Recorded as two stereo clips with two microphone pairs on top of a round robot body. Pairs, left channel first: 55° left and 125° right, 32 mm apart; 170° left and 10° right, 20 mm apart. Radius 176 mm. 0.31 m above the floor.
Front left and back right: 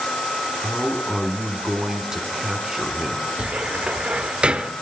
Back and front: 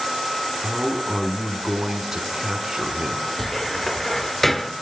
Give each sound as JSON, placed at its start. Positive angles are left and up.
{"t": 0.6, "sound": "a man speaking", "azimuth_deg": -60, "distance_m": 1.4}
{"t": 3.4, "sound": "a cupboard door", "azimuth_deg": -120, "distance_m": 0.8}